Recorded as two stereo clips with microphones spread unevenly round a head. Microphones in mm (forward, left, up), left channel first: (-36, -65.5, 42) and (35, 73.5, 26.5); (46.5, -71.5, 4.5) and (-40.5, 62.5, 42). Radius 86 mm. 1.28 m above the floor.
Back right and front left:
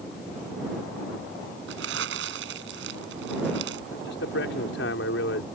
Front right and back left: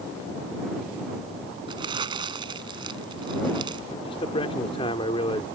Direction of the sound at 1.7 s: 65° left.